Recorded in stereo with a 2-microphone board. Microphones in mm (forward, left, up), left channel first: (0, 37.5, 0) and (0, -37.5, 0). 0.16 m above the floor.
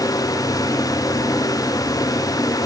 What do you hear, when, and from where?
Only background noise.